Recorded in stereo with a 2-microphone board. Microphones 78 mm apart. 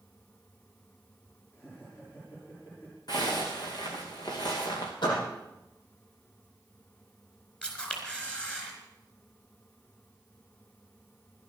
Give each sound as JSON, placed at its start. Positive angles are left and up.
{"t": 1.5, "sound": "laughter", "side_deg": 35, "distance_m": 6.0}
{"t": 3.1, "sound": "a zipper", "side_deg": 60, "distance_m": 3.5}
{"t": 5.0, "sound": "a door slam", "side_deg": 75, "distance_m": 6.5}
{"t": 7.6, "sound": "a camera shutter", "side_deg": 15, "distance_m": 4.0}